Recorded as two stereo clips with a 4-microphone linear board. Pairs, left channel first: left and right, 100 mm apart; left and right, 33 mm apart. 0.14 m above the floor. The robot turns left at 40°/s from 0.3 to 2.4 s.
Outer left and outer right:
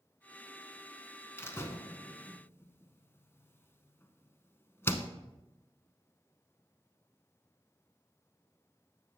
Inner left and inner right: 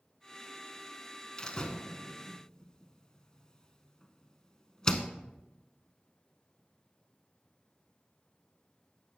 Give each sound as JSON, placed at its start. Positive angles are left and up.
{"t": 1.4, "sound": "a door slam", "side_deg": 25, "distance_m": 0.8}